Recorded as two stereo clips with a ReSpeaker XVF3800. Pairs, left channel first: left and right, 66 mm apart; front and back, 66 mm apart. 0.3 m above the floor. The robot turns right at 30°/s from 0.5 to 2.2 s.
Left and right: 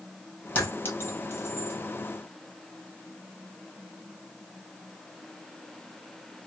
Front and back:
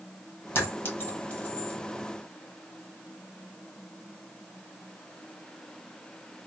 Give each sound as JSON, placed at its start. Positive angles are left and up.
{"t": 0.6, "sound": "a clink", "azimuth_deg": 30, "distance_m": 1.2}